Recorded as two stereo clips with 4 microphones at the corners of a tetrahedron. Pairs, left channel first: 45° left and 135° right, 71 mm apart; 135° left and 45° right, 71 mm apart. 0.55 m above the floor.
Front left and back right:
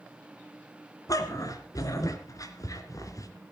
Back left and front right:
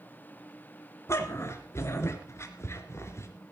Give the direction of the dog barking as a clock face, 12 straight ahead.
9 o'clock.